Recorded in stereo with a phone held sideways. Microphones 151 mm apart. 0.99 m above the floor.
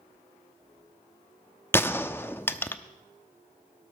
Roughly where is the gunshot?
Centre.